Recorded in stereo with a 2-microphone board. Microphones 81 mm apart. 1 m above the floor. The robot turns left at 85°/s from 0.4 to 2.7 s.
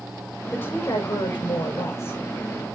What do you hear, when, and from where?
0.5 s a woman speaking: 165° left, 5.5 m; by 2.2 s 20° left, 5.5 m